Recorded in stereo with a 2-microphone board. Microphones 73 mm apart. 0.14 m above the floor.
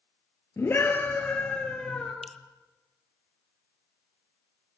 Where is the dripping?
Centre (ahead or behind), 0.7 m.